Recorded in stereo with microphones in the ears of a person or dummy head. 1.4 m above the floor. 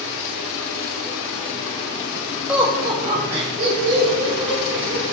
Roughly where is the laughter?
Centre.